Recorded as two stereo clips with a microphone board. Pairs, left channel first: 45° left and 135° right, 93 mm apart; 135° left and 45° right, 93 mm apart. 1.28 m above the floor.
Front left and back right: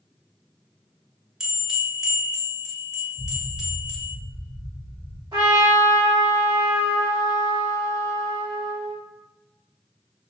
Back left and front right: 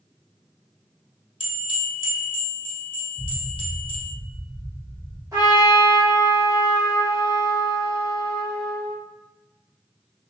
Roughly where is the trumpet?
Right.